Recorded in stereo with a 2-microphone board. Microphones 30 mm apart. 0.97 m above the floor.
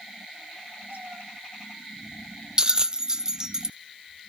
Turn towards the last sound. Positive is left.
turn(degrees=-25)  # may be behind; listen again after turning